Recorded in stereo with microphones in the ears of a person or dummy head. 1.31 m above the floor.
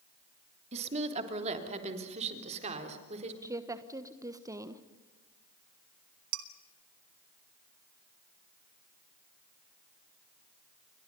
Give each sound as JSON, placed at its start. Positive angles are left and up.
{"t": 0.7, "sound": "a woman speaking", "side_deg": -35, "distance_m": 3.0}
{"t": 3.4, "sound": "a woman speaking", "side_deg": -20, "distance_m": 1.3}
{"t": 6.3, "sound": "dishes clattering", "side_deg": -80, "distance_m": 1.7}